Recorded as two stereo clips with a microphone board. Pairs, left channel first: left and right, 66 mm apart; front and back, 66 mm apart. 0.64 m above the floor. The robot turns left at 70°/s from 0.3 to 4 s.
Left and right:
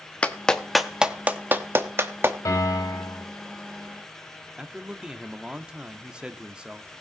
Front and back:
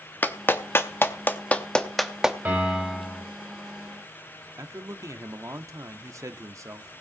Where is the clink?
No clink in this recording.